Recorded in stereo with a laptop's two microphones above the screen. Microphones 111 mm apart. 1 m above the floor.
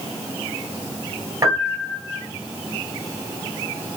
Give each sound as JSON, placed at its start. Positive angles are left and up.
{"t": 1.4, "sound": "a piano", "side_deg": -25, "distance_m": 2.0}